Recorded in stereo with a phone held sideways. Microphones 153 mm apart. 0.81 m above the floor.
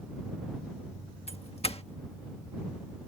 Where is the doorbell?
45° left (ahead or behind).